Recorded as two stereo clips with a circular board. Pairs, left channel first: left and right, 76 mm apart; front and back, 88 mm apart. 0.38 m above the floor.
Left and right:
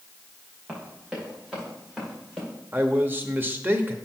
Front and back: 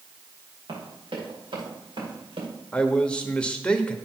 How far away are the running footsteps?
About 5 m.